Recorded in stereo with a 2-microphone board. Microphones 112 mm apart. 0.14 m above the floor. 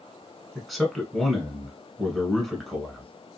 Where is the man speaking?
Centre (ahead or behind), 1.1 m.